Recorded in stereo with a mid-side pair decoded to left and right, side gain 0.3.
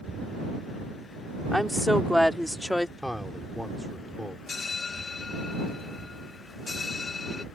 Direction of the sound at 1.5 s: Straight ahead.